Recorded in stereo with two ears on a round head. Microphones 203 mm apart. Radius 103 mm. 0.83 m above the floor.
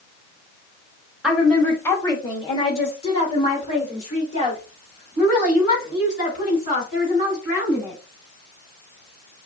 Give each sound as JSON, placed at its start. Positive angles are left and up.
{"t": 1.2, "sound": "a woman speaking", "side_deg": 0, "distance_m": 1.1}